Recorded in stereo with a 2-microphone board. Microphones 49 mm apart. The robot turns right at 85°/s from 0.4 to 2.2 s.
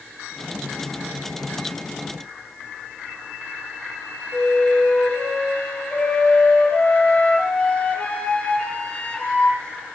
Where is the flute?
25° left (ahead or behind), 6 m.